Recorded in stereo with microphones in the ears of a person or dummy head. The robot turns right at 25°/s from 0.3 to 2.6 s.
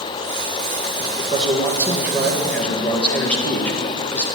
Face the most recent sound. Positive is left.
turn(degrees=5)